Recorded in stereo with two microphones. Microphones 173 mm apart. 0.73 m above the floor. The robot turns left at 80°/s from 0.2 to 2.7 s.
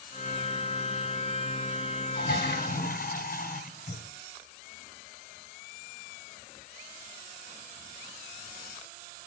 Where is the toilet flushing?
105° left, 3 m; by 4.0 s 60° left, 3 m.